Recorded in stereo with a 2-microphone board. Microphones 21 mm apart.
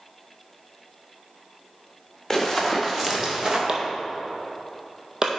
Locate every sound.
2.3 s running footsteps: 10° left (ahead or behind), 2 m; by 3.6 s 25° right (ahead or behind), 2 m
3.7 s chopping: 25° right (ahead or behind), 1.2 m